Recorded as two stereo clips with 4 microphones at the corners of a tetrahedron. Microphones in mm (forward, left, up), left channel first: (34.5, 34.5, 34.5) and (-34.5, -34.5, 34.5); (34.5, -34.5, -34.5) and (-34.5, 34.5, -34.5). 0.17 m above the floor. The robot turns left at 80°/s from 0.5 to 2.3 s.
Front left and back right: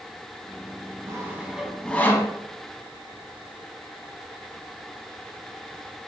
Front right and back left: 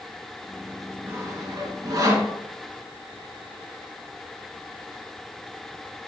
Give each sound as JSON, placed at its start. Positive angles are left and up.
{"t": 1.1, "sound": "sawing", "azimuth_deg": -175, "distance_m": 0.6}